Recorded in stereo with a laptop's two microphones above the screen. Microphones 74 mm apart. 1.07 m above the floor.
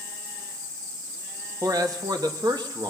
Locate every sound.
1.6 s a man speaking: 55° right (ahead or behind), 1.6 m; by 2.9 s 70° right (ahead or behind), 1.8 m